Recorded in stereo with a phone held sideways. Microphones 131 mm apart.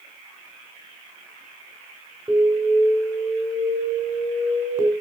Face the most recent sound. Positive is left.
turn(degrees=-20)  # may be behind; listen again after turning